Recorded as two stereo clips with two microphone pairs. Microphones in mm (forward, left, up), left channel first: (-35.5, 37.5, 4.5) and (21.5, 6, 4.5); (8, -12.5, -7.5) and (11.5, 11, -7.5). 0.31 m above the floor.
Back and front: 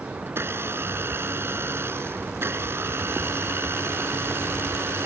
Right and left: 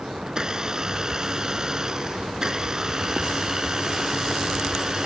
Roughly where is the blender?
Ahead.